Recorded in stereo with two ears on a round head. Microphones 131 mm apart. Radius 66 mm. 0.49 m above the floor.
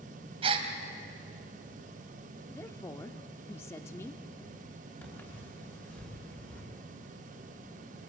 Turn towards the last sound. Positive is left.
turn(degrees=10)  # may be behind; listen again after turning